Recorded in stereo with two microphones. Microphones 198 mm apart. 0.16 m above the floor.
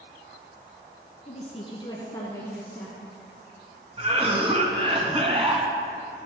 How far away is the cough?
About 1.8 m.